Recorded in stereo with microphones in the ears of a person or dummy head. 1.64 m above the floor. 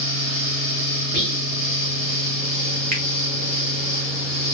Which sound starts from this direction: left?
A fan, at 0.0 s.